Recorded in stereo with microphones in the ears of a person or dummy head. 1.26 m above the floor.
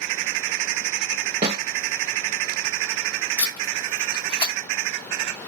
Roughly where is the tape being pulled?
Left.